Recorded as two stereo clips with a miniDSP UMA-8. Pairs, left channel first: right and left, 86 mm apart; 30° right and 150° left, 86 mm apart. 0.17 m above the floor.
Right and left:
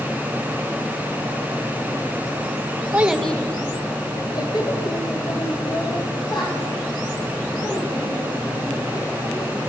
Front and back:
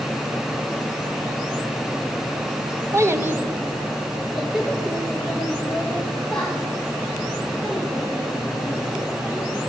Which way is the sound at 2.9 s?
140° left.